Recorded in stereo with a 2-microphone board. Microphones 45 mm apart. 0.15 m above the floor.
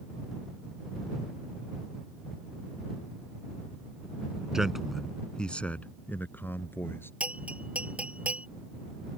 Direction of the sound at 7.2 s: 35° right (ahead or behind).